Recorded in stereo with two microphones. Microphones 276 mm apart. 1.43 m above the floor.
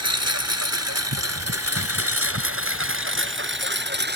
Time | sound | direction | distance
0.0 | a lawn mower | 70° right (ahead or behind) | ?